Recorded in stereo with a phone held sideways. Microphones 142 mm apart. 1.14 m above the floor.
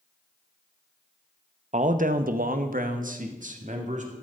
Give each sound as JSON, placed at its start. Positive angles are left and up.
{"t": 1.7, "sound": "a man speaking", "side_deg": -55, "distance_m": 0.9}